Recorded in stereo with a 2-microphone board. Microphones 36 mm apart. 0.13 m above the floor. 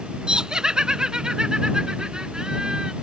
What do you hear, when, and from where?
0.3 s laughter: 25° right (ahead or behind)